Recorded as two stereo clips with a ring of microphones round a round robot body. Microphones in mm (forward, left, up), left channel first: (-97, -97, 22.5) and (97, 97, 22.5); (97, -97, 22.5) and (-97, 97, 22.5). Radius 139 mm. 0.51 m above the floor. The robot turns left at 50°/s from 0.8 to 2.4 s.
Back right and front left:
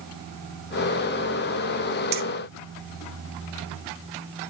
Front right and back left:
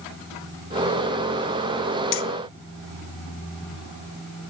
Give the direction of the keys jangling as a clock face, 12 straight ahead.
12 o'clock.